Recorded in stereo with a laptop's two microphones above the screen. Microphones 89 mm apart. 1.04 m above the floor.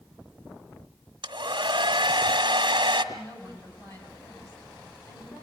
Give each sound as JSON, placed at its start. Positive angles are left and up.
{"t": 1.2, "sound": "a hair dryer", "side_deg": -65, "distance_m": 1.5}
{"t": 3.1, "sound": "a woman speaking", "side_deg": 40, "distance_m": 6.5}